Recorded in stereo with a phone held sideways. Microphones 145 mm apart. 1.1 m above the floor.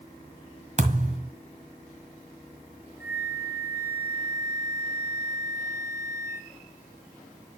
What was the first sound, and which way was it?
A thud, 55° right (ahead or behind).